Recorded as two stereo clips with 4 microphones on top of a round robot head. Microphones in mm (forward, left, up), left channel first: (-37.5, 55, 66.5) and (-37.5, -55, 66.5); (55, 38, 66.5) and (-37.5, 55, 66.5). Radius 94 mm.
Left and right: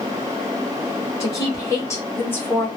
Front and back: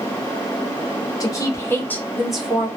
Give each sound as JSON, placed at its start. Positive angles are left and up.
{"t": 1.2, "sound": "a woman speaking", "azimuth_deg": 35, "distance_m": 1.7}